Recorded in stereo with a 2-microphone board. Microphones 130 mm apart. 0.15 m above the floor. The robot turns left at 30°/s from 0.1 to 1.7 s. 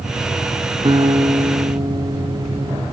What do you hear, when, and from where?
0.8 s a guitar: 35° right (ahead or behind), 2.0 m